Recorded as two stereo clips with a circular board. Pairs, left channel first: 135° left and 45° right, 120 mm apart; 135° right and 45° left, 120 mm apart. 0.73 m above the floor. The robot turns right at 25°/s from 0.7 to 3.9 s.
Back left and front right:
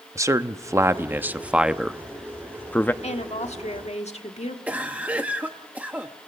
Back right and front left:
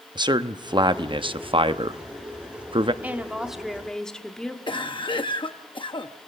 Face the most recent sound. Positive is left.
turn(degrees=-120)